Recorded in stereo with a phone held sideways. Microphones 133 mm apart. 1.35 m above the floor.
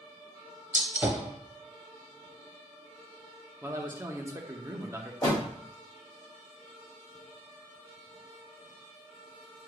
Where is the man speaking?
20° right (ahead or behind), 0.6 m.